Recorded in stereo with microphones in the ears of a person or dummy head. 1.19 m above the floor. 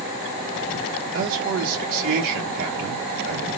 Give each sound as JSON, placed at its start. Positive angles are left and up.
{"t": 1.1, "sound": "a man speaking", "side_deg": -50, "distance_m": 0.9}